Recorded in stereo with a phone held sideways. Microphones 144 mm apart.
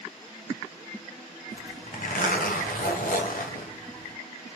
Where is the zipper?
75° left (ahead or behind), 0.8 m.